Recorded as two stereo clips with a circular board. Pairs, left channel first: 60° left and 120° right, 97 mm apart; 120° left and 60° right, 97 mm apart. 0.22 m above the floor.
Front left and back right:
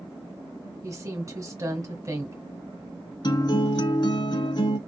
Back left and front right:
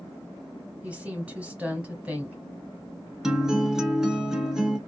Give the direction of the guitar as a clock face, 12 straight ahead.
11 o'clock.